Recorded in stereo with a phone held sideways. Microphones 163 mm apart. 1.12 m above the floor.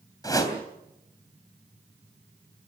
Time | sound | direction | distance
0.2 | a whoosh | 20° left (ahead or behind) | 3.5 m